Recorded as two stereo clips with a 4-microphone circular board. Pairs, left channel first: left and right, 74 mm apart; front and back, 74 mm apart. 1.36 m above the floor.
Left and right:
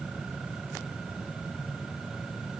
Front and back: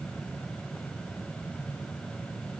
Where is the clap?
I don't hear a clap.